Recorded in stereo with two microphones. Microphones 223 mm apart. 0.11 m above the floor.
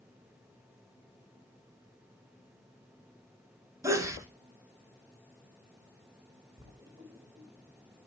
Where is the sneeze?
15° right (ahead or behind), 1.3 m.